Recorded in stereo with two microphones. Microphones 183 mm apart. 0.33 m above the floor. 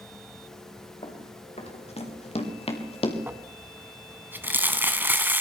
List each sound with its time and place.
1.0 s running footsteps: 40° left (ahead or behind), 5.5 m; by 3.2 s 35° left (ahead or behind), 3.5 m
3.3 s crumpling: 10° right (ahead or behind), 1.6 m